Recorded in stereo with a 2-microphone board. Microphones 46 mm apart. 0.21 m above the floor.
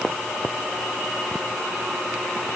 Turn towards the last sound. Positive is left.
No sound to turn to.